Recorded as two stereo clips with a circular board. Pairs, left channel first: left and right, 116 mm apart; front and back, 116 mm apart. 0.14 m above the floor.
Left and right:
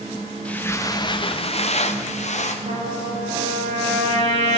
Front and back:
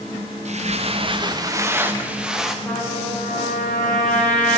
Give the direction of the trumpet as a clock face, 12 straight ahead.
3 o'clock.